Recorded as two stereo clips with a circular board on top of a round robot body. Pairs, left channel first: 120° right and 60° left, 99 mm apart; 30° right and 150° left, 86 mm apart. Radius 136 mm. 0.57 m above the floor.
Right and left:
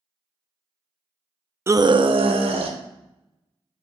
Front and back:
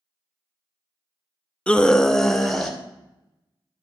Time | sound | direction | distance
1.7 | a scream | 35° left | 0.6 m